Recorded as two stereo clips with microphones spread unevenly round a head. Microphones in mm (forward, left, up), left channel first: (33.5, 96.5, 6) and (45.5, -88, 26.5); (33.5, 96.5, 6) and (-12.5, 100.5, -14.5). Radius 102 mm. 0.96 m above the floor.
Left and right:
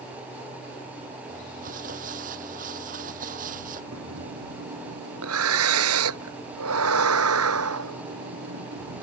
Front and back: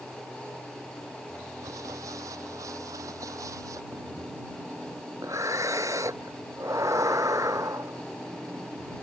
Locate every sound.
1.3 s crumpling: 140° right
3.9 s breathing: 110° right